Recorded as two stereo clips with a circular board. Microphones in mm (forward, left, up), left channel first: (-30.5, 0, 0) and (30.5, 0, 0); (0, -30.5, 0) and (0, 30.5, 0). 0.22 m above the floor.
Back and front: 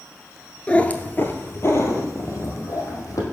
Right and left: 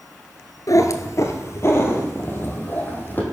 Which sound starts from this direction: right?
A cat meowing, at 0.7 s.